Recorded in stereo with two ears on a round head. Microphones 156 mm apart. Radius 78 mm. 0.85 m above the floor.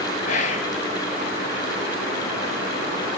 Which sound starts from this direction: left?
Whispering, at 0.3 s.